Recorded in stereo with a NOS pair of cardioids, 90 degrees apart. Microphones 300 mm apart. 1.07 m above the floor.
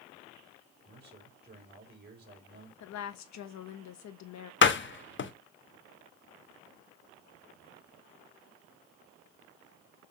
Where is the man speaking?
35° right, 5 m.